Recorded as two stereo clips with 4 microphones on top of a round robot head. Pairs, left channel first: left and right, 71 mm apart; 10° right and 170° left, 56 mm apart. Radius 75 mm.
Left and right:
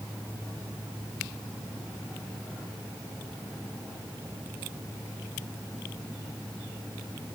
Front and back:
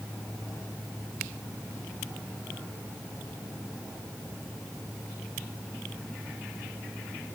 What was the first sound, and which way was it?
Only background noise.